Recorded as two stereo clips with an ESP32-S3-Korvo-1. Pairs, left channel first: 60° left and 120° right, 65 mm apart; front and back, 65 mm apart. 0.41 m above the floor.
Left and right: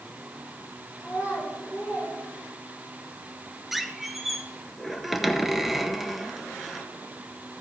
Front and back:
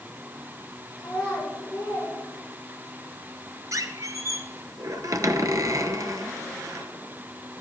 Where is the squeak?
155° left, 0.8 m.